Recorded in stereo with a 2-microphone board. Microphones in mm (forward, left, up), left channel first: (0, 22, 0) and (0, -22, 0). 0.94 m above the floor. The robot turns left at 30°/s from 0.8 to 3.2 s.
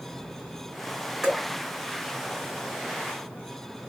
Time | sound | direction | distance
1.2 | dripping | 15° right (ahead or behind) | 1.6 m